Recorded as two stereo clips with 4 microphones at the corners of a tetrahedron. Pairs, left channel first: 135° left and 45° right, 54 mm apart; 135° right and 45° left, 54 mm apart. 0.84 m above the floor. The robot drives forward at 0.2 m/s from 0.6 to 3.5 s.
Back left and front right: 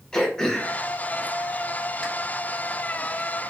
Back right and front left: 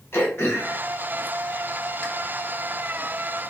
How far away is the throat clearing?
About 1.1 m.